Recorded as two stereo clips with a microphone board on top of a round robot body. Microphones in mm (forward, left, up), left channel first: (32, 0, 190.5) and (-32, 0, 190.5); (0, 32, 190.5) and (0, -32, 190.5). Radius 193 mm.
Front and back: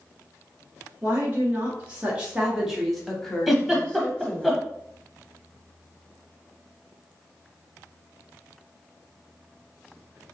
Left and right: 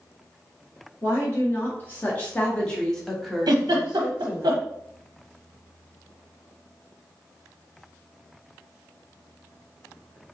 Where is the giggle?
90° right, 0.6 m.